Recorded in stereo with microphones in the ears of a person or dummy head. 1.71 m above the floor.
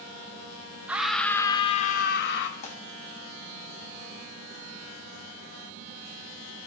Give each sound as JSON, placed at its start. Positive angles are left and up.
{"t": 0.9, "sound": "a scream", "side_deg": -10, "distance_m": 0.6}
{"t": 2.6, "sound": "tearing paper", "side_deg": 45, "distance_m": 1.0}